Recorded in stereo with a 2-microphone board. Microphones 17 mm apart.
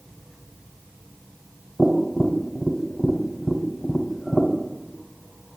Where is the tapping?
15° right (ahead or behind), 1.1 m.